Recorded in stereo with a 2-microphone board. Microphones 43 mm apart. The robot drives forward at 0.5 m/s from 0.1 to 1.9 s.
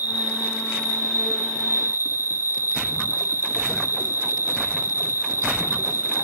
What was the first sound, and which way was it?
An insect, 40° right (ahead or behind).